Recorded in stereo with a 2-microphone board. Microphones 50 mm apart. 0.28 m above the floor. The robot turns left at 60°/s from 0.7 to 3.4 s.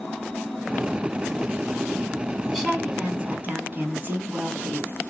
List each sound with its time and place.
2.5 s a woman speaking: 15° left, 2 m; by 4.9 s 40° right, 2 m